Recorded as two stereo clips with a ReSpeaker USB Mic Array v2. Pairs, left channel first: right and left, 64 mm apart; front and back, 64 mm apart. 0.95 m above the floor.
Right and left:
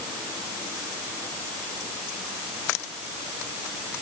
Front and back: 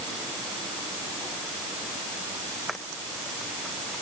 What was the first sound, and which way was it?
Only background noise.